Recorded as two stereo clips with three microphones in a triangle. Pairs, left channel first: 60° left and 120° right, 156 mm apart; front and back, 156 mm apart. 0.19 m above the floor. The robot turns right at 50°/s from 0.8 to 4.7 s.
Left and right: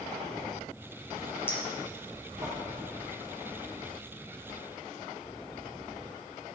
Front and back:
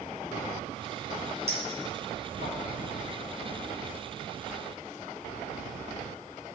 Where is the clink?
135° left, 3 m; by 2.5 s 170° right, 3 m.